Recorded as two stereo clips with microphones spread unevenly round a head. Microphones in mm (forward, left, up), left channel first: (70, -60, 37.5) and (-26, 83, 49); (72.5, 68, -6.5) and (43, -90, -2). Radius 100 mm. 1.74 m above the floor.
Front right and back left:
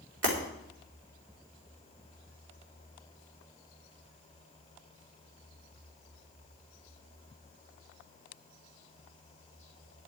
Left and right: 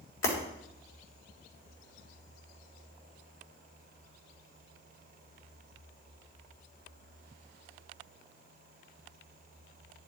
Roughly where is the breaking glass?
Left.